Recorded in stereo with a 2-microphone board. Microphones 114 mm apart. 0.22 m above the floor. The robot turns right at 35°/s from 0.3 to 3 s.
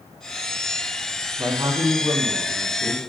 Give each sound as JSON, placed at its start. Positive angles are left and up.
{"t": 1.4, "sound": "a man speaking", "azimuth_deg": -140, "distance_m": 1.4}